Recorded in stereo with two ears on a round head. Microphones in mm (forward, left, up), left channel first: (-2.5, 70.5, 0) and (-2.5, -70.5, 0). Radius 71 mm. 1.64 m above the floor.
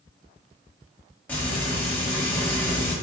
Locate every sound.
1.3 s frying: 10° left (ahead or behind), 1.3 m